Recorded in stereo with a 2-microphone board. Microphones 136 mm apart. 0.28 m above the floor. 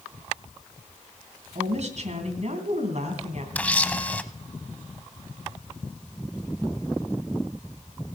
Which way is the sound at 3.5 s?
10° left (ahead or behind).